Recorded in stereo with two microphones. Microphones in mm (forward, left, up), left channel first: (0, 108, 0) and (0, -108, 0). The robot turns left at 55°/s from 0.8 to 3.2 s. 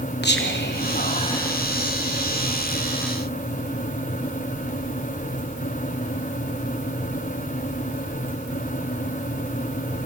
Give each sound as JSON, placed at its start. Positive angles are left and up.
{"t": 0.2, "sound": "whispering", "side_deg": 50, "distance_m": 0.9}